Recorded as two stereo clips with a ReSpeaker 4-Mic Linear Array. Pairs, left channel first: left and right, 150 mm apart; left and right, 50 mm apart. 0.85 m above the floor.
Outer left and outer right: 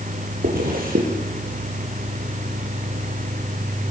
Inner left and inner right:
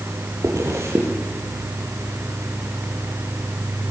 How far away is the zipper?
About 6 m.